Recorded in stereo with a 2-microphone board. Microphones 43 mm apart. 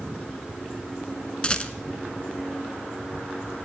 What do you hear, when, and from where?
1.4 s a rattle: 25° left (ahead or behind), 0.7 m